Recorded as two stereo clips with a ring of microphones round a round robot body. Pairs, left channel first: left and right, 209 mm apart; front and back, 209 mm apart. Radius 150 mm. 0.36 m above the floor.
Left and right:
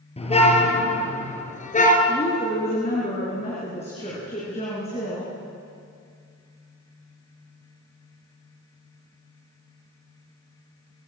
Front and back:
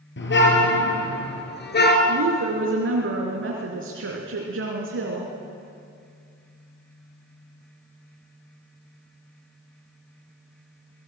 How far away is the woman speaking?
About 4 m.